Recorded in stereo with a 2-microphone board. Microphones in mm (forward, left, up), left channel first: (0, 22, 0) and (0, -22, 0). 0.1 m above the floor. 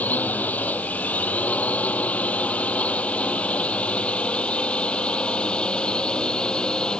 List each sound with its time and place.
0.0 s a drone: 40° left (ahead or behind); by 7.0 s 20° left (ahead or behind)